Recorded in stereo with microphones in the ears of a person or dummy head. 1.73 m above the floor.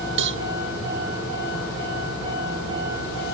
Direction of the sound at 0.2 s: 65° right (ahead or behind).